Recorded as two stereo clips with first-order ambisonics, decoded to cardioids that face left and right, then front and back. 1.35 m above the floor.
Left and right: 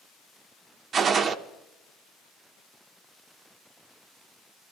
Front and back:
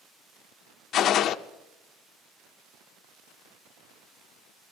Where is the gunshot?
35° right, 0.6 m.